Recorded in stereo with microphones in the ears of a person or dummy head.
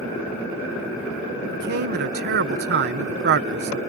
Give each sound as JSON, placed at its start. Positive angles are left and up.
{"t": 1.5, "sound": "a man speaking", "side_deg": -55}